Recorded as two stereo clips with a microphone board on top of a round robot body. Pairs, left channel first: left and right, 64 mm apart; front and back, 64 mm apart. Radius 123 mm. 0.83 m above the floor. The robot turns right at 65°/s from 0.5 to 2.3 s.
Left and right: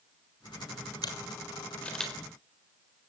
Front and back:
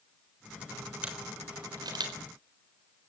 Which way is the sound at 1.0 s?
110° left.